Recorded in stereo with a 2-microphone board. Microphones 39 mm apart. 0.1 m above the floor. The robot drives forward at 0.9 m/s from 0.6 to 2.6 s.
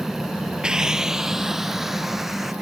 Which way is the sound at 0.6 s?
20° right (ahead or behind).